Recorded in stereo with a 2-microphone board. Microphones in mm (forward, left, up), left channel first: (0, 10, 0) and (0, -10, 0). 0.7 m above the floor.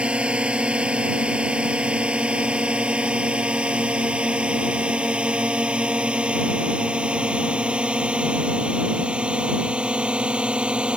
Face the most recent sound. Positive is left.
turn(degrees=-70)  # may be behind; listen again after turning